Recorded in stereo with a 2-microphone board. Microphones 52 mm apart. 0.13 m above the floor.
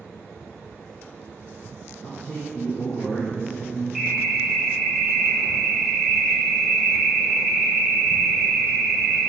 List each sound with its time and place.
2.0 s a man speaking: 20° left (ahead or behind), 1.8 m; by 3.9 s 55° left (ahead or behind), 2.5 m
4.0 s an alarm: centre (ahead or behind), 2 m